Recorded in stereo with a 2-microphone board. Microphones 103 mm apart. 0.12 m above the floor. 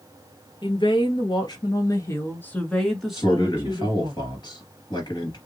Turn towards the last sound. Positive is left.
turn(degrees=40)  # may be behind; listen again after turning